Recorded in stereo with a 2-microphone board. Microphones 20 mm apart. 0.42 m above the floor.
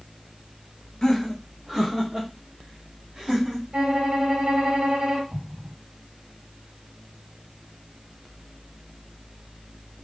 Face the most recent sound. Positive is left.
turn(degrees=-80)